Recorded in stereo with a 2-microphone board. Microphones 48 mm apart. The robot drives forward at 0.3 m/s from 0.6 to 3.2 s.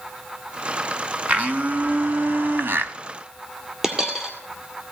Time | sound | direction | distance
1.3 | a blender | 30° right (ahead or behind) | 0.8 m
3.8 | a dropped coin | 10° right (ahead or behind) | 2 m